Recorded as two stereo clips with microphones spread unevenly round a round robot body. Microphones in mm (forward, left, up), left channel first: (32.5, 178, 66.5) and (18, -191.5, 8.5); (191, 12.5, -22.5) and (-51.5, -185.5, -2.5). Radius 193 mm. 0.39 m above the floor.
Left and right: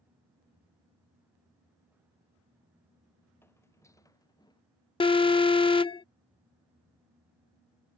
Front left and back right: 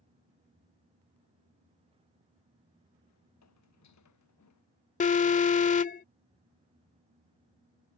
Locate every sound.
3.4 s footsteps: 5° left; by 4.6 s 10° left
5.0 s an alarm: 5° left